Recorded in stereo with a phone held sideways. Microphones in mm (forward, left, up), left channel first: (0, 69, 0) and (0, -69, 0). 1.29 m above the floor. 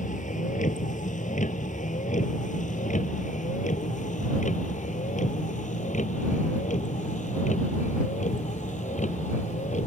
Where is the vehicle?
65° left (ahead or behind); by 9.9 s 60° left (ahead or behind).